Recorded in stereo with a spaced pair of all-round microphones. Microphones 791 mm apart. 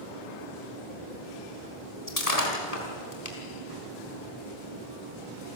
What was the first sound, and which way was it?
Breaking glass, 50° left (ahead or behind).